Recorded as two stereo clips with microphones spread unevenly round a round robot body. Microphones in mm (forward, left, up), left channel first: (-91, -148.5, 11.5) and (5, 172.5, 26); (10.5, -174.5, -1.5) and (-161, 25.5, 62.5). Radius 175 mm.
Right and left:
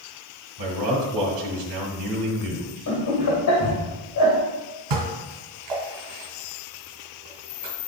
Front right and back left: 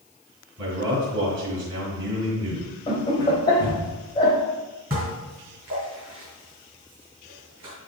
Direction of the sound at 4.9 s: 55° left.